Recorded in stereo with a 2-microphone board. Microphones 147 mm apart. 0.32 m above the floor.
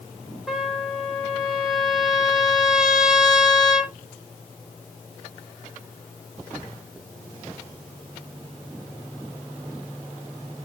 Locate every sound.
0.5 s a trumpet: 5° right (ahead or behind), 1.5 m